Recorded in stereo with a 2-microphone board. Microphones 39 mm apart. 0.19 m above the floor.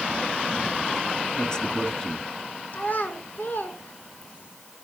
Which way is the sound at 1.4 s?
20° left (ahead or behind).